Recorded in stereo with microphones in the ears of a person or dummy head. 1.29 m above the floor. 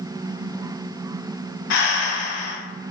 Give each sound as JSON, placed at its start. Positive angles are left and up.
{"t": 1.7, "sound": "breathing", "side_deg": 65, "distance_m": 0.5}